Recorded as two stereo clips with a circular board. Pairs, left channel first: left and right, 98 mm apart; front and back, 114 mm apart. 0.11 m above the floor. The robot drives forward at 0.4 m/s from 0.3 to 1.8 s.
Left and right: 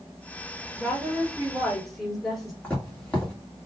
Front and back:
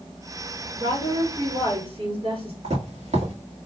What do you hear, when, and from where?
0.8 s a woman speaking: 175° left, 2.5 m
2.6 s footsteps: 165° left, 2 m